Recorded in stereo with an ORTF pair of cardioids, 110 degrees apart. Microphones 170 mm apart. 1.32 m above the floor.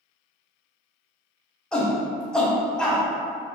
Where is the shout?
5° left, 0.8 m.